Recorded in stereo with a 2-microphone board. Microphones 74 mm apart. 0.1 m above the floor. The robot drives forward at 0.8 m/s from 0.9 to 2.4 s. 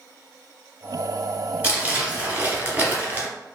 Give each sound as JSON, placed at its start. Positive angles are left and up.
{"t": 1.6, "sound": "crumpling", "side_deg": -20, "distance_m": 1.3}